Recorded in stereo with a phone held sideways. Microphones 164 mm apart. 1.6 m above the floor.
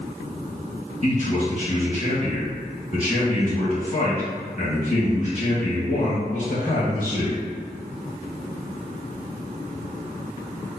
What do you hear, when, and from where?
1.0 s a man speaking: 45° left (ahead or behind), 1.4 m